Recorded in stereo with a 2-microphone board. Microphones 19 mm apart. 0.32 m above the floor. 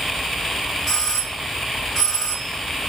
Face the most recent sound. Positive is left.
turn(degrees=20)  # may be behind; listen again after turning